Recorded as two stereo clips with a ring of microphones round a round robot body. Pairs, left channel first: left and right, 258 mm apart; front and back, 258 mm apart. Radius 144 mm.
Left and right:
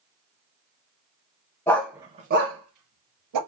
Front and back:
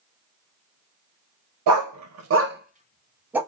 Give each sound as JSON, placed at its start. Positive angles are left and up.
{"t": 1.7, "sound": "a dog barking", "azimuth_deg": 170, "distance_m": 0.6}